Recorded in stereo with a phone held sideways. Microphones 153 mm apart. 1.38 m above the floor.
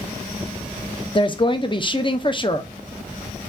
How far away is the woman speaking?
About 0.8 m.